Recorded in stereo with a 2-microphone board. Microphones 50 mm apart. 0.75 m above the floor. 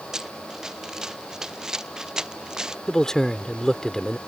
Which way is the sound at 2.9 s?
10° left (ahead or behind).